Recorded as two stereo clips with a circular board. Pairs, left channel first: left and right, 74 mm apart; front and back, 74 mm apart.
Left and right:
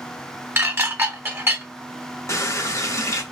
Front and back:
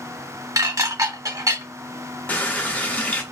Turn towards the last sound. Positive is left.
turn(degrees=60)